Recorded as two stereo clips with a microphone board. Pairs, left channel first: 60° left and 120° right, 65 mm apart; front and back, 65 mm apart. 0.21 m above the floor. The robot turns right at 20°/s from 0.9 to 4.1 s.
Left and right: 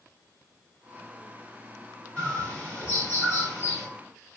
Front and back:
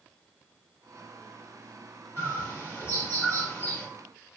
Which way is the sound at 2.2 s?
5° left.